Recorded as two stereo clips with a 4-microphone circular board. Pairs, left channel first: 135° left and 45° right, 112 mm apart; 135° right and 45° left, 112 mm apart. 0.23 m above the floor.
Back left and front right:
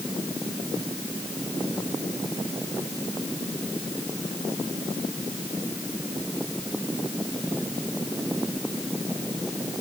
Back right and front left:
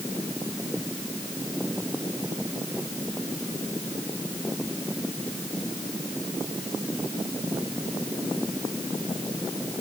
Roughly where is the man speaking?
I don't hear a man speaking.